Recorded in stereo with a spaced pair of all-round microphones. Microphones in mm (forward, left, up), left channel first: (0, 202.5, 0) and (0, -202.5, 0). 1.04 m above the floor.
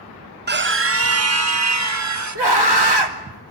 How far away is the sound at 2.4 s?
About 3 m.